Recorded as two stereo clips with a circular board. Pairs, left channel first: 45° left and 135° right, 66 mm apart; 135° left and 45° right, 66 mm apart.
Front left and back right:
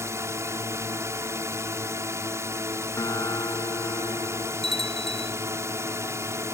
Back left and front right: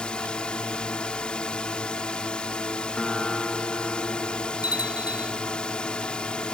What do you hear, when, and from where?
0.0 s a drone: 155° right
3.0 s a guitar: 55° left
4.6 s a bell: 130° left